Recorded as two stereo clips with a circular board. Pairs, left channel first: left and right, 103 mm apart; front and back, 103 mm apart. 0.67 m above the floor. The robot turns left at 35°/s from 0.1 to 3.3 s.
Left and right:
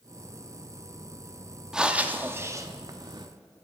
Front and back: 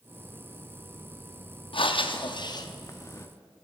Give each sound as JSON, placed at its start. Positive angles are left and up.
{"t": 1.7, "sound": "breathing", "azimuth_deg": -5, "distance_m": 0.7}